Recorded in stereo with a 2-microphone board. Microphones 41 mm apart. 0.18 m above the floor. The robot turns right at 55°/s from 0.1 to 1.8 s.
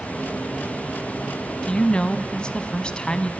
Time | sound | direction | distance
1.6 | a woman speaking | 25° left (ahead or behind) | 1.0 m